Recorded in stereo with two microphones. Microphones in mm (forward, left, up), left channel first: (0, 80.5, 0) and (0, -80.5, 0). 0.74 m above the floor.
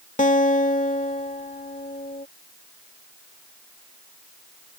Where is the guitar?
55° left (ahead or behind).